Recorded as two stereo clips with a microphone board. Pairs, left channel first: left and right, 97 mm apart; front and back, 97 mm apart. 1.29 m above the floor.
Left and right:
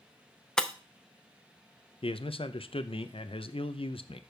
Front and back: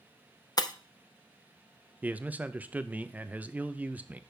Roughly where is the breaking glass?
Ahead.